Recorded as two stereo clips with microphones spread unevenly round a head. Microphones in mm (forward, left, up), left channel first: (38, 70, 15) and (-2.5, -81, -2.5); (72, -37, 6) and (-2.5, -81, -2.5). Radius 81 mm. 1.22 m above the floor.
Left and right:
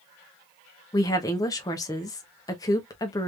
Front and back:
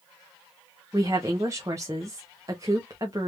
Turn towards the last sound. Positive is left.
turn(degrees=145)